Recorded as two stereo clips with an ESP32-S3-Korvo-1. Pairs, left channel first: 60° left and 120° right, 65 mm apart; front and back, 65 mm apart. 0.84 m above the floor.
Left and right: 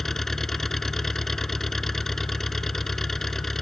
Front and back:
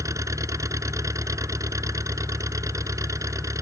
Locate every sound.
0.0 s an engine running: 145° left